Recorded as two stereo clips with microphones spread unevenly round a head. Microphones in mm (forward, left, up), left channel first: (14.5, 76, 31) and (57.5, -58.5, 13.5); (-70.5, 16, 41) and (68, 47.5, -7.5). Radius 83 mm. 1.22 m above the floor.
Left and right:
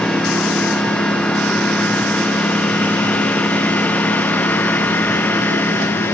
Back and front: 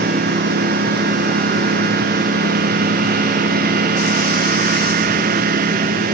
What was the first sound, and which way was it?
A lawn mower, 25° left.